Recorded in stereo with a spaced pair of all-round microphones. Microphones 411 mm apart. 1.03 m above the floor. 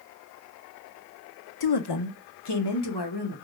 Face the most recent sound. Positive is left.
turn(degrees=70)  # may be behind; listen again after turning